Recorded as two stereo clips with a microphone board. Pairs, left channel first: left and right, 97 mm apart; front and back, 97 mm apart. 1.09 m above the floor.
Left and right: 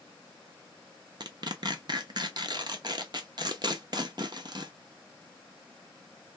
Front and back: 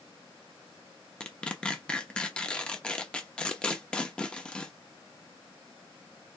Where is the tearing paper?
75° right, 0.8 m.